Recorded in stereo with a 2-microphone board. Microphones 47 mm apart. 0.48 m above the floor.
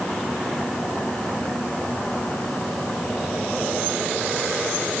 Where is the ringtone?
No ringtone in this recording.